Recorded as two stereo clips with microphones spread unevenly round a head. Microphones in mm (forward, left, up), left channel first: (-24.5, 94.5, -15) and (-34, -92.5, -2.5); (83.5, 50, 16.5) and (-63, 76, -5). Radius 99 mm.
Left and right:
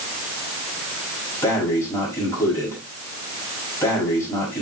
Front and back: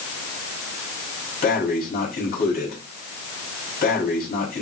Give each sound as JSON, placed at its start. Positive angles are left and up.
{"t": 1.4, "sound": "breathing", "azimuth_deg": 10, "distance_m": 4.5}